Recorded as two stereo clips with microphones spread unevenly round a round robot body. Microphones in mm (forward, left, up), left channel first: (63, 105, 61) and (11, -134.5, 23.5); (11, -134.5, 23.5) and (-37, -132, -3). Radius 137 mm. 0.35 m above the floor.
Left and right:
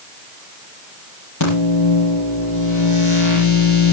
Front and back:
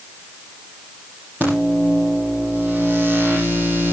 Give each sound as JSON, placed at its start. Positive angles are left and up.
{"t": 1.4, "sound": "a microwave", "azimuth_deg": 85, "distance_m": 8.0}